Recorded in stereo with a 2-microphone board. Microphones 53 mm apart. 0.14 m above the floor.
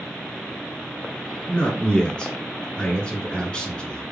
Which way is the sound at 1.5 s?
20° left (ahead or behind).